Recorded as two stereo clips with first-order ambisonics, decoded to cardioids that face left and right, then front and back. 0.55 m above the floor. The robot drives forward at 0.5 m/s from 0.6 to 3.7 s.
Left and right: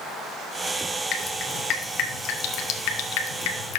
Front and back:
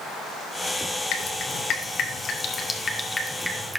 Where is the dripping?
40° left, 1.6 m; by 3.8 s 95° left, 1.1 m.